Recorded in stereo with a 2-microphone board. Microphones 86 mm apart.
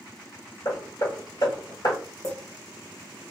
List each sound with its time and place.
0.7 s hammering: 55° left (ahead or behind), 1.5 m
2.2 s a clink: 45° left (ahead or behind), 1.6 m